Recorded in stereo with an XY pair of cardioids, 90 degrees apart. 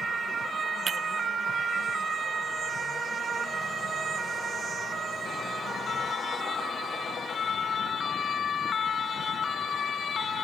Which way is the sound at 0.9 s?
55° right.